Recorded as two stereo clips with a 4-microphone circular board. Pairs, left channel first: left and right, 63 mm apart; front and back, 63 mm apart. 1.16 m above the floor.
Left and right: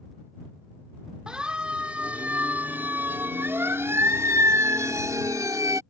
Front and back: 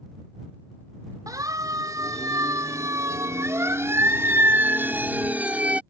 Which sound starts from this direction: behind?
A siren, at 1.3 s.